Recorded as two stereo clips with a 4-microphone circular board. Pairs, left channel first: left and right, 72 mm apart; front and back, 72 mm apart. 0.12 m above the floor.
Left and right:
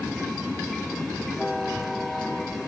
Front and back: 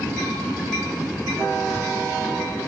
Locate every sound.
1.6 s a child speaking: 175° left, 0.8 m